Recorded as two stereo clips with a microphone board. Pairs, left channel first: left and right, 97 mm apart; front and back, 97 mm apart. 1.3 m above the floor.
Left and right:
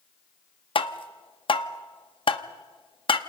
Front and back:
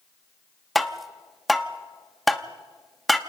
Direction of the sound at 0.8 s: 90° left.